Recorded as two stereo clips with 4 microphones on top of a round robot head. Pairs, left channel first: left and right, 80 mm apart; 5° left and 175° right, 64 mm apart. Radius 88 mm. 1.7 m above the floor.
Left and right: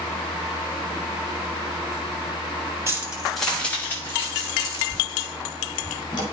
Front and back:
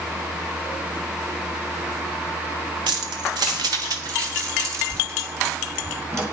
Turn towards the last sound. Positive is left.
turn(degrees=135)